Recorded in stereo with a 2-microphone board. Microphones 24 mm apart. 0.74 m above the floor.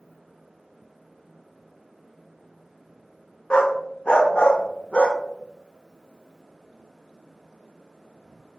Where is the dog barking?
50° left (ahead or behind), 0.6 m.